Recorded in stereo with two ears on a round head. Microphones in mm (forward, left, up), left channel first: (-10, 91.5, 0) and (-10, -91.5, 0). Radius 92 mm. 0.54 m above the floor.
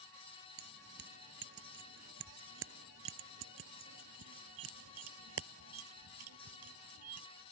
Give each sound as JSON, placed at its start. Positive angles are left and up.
{"t": 0.6, "sound": "keys jangling", "side_deg": -50}